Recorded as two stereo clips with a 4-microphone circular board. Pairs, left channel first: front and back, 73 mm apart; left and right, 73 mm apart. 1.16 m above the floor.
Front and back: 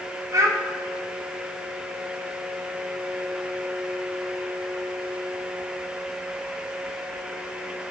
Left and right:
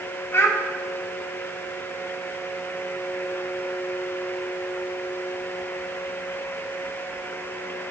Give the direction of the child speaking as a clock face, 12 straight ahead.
7 o'clock.